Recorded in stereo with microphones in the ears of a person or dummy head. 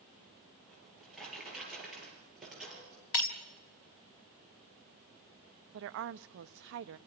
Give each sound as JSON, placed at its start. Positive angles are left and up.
{"t": 0.7, "sound": "a drawer", "side_deg": 0, "distance_m": 7.5}
{"t": 3.1, "sound": "breaking glass", "side_deg": 65, "distance_m": 2.0}
{"t": 5.7, "sound": "a woman speaking", "side_deg": -65, "distance_m": 0.7}